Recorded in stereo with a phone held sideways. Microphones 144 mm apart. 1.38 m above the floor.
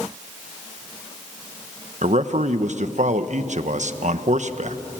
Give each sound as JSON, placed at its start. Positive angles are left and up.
{"t": 2.0, "sound": "a man speaking", "side_deg": -60, "distance_m": 1.0}